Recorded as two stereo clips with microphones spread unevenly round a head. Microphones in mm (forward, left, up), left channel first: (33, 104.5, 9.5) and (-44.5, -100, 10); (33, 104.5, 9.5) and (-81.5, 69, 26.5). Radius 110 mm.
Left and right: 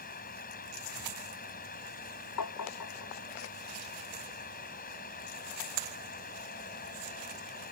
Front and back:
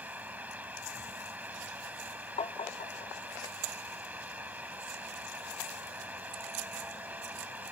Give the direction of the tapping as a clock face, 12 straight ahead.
10 o'clock.